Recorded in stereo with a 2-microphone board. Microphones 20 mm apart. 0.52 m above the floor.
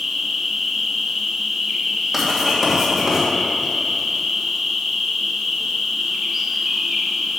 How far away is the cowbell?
No cowbell in this recording.